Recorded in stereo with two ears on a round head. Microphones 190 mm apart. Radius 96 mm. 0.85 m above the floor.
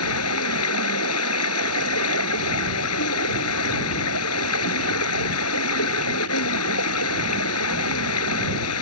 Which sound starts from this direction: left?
Running water, at 0.0 s.